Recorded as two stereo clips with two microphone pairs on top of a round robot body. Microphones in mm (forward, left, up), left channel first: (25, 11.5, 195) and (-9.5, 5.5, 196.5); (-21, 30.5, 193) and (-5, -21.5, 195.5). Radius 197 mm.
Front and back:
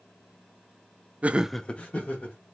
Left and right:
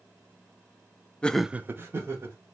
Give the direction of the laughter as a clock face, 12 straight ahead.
6 o'clock.